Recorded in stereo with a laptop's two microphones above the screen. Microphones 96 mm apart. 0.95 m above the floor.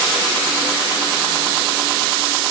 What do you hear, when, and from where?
Only background noise.